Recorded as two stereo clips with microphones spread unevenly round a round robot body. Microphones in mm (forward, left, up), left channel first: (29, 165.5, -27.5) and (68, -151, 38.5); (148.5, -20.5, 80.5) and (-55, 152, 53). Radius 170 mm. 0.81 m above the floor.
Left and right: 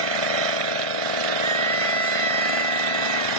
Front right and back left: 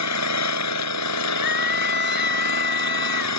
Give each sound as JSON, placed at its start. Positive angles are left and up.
{"t": 0.0, "sound": "an engine running", "azimuth_deg": -85}
{"t": 1.4, "sound": "a scream", "azimuth_deg": -50}